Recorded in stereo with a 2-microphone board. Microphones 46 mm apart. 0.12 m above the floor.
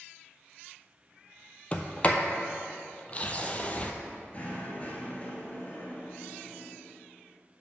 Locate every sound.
1.7 s a sliding door: 30° left (ahead or behind), 0.6 m
4.3 s knocking: 30° left (ahead or behind), 1.5 m